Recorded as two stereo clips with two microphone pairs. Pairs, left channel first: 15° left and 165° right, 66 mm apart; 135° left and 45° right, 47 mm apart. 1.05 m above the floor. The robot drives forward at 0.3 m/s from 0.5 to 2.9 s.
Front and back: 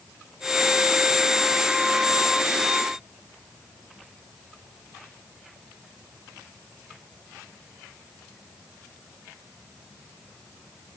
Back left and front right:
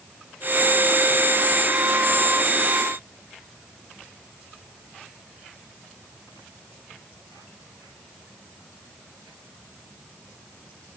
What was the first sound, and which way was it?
Only background noise.